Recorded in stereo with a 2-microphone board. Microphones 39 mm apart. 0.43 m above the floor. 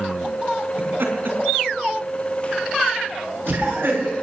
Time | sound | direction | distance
0.8 | laughter | 65° right (ahead or behind) | 4 m